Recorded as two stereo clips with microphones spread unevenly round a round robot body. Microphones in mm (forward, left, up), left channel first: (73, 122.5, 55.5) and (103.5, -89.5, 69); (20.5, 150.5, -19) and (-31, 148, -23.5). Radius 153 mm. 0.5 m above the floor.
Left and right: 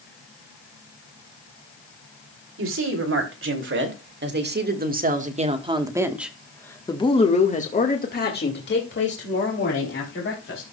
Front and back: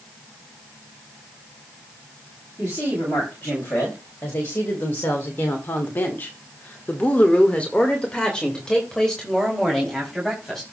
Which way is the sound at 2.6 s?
65° right.